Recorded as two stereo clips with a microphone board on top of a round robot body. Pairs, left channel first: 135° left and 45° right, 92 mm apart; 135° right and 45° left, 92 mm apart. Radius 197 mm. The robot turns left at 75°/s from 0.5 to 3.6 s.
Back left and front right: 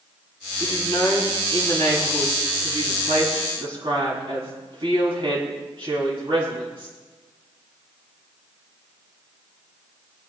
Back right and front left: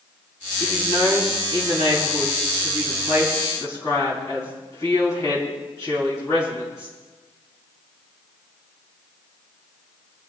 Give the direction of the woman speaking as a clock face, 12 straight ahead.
7 o'clock.